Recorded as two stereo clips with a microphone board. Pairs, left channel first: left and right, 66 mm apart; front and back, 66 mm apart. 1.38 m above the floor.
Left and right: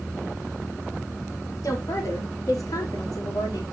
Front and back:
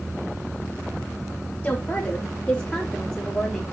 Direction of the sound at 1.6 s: 60° left.